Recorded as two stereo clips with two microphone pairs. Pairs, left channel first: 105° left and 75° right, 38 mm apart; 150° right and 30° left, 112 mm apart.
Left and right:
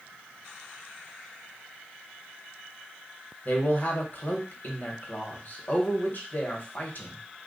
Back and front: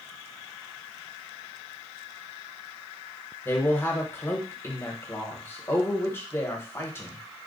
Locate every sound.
3.5 s a man speaking: 140° left, 1.1 m